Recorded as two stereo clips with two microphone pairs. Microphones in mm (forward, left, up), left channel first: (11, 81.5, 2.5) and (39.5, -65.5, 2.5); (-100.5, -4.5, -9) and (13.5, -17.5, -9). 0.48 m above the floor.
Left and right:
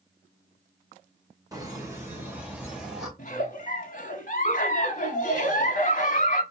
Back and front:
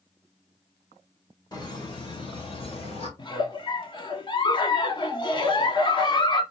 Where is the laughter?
140° right, 2 m; by 3.1 s 165° right, 2.5 m.